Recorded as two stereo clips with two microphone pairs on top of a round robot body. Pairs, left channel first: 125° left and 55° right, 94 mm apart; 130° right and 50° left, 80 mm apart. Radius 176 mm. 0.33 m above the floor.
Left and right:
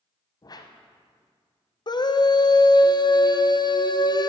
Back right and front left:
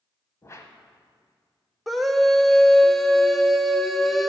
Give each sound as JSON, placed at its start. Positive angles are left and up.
{"t": 0.4, "sound": "a whoosh", "azimuth_deg": 170, "distance_m": 1.0}
{"t": 1.9, "sound": "a scream", "azimuth_deg": 130, "distance_m": 1.2}